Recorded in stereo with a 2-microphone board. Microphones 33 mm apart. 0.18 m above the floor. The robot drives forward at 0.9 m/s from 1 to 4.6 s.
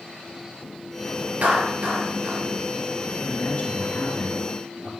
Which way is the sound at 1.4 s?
55° right (ahead or behind).